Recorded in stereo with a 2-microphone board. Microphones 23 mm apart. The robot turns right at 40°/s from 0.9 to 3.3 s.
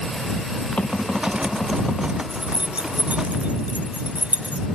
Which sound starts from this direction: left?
Knocking, at 0.8 s.